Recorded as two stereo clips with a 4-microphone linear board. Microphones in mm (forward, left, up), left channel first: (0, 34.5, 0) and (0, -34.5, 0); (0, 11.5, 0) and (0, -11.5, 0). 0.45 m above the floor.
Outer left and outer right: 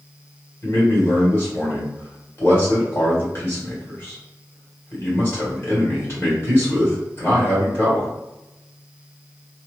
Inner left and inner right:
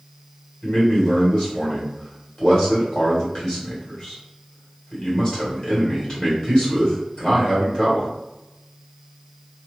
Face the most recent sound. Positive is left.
turn(degrees=35)  # may be behind; listen again after turning